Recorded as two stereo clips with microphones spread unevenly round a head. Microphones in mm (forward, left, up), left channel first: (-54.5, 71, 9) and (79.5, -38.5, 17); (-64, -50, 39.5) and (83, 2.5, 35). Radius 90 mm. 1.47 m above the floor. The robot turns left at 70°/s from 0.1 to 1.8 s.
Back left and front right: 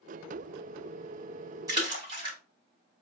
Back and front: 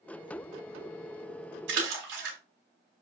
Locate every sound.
1.7 s a splash: 35° left, 2.5 m; by 2.4 s 25° left, 2.5 m